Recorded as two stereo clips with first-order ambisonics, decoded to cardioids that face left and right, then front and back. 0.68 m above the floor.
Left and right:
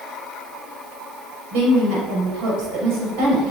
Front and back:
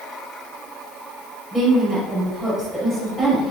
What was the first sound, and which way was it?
A woman speaking, 100° right.